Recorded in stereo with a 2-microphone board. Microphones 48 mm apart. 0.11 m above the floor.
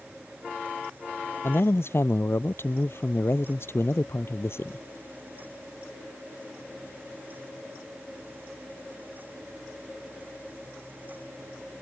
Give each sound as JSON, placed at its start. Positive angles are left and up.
{"t": 1.4, "sound": "a man speaking", "side_deg": 60}